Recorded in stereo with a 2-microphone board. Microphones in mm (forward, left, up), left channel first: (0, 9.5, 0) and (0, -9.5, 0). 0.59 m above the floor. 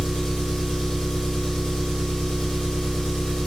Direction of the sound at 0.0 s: 70° left (ahead or behind).